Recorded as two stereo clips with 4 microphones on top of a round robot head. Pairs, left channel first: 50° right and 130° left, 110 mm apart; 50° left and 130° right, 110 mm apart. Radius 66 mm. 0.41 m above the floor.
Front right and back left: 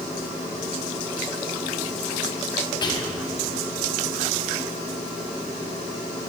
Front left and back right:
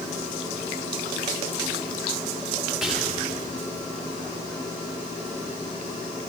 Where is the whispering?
50° right, 1.7 m.